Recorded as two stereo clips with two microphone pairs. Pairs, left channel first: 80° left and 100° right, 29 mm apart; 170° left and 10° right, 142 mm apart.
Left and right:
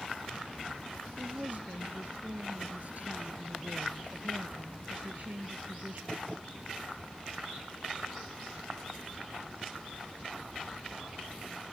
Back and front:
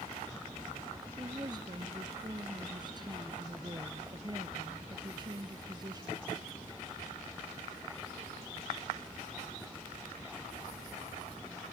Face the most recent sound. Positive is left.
turn(degrees=-70)